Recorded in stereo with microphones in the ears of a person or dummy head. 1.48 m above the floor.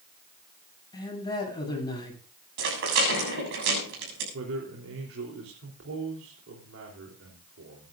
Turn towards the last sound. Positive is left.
turn(degrees=-65)  # may be behind; listen again after turning